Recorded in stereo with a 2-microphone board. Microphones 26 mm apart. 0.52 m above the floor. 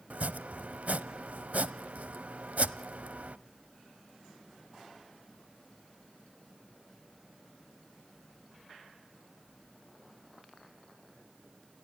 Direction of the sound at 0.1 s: 70° right (ahead or behind).